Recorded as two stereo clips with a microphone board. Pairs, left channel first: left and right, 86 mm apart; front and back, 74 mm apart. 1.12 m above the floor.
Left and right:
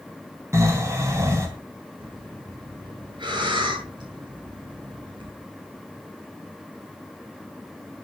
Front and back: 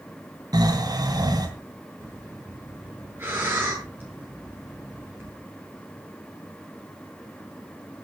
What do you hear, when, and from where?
0.5 s snoring: 145° right, 3.5 m
2.0 s breathing: 120° right, 8.5 m